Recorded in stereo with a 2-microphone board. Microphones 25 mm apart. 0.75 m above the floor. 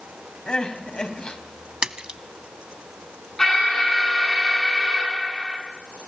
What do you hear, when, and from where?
0.5 s crying: 45° left (ahead or behind), 2.5 m
1.8 s a splash: 45° right (ahead or behind), 0.8 m
3.4 s an alarm: 15° left (ahead or behind), 8 m